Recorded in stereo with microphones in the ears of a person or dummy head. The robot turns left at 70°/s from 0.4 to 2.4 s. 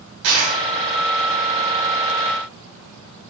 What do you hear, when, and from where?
0.2 s a dropped coin: 75° right (ahead or behind), 3.5 m; by 0.6 s 80° right, 3.5 m